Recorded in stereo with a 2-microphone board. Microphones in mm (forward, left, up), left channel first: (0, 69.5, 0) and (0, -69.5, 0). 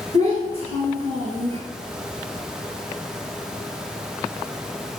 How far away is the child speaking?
About 1.4 m.